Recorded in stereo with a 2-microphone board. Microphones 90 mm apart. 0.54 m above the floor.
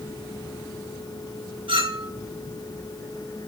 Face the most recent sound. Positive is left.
turn(degrees=-75)  # may be behind; listen again after turning